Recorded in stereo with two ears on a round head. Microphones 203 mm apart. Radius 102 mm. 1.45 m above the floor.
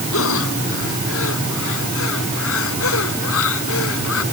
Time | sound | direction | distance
0.1 | breathing | 70° left (ahead or behind) | ?